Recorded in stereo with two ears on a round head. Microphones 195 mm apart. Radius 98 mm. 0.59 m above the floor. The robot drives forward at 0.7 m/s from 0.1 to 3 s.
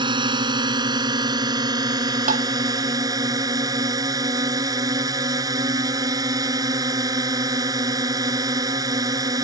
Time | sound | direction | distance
0.0 | a drone | 20° right (ahead or behind) | ?
2.3 | tapping | 35° right (ahead or behind) | ?